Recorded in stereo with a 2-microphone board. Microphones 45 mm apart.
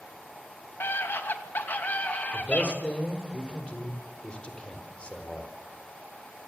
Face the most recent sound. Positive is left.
turn(degrees=25)  # may be behind; listen again after turning